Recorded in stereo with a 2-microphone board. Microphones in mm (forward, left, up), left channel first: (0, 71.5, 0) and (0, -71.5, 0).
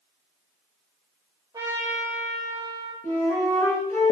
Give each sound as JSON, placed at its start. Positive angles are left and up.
{"t": 1.5, "sound": "a trumpet", "side_deg": -30, "distance_m": 4.5}
{"t": 3.0, "sound": "a flute", "side_deg": 20, "distance_m": 4.0}